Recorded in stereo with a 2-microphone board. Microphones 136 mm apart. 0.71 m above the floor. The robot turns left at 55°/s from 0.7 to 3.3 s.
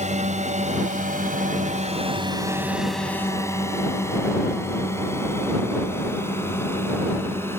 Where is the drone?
60° right (ahead or behind); by 7.6 s 20° left (ahead or behind).